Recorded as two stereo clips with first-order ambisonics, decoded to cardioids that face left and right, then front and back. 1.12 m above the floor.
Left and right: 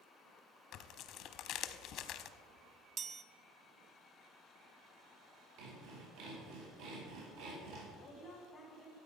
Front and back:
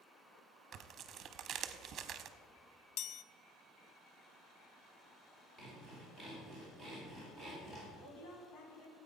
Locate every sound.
0.7 s tearing paper: 125° left, 0.8 m
3.0 s a chime: 30° right, 0.5 m
5.6 s sawing: 75° right, 4.5 m
8.0 s a woman speaking: 5° right, 4 m